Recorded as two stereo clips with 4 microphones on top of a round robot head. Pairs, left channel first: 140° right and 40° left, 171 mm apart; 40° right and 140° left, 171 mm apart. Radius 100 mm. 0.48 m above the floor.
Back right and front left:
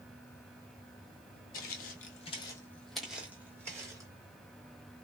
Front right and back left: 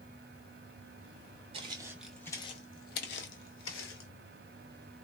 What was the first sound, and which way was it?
Footsteps, 165° right.